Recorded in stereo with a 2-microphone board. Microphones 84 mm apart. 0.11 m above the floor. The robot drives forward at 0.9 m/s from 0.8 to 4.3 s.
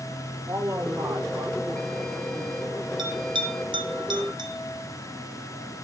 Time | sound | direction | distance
0.5 | a man speaking | 45° right (ahead or behind) | 6 m
3.0 | a bell | 65° right (ahead or behind) | 1.3 m